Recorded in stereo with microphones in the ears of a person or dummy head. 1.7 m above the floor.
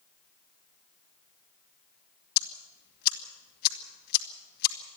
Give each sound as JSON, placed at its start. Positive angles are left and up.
{"t": 2.4, "sound": "ticking", "side_deg": 55, "distance_m": 2.5}